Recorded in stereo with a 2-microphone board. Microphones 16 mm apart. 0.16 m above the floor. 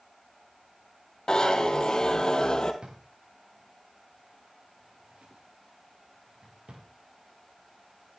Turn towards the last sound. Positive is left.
turn(degrees=-85)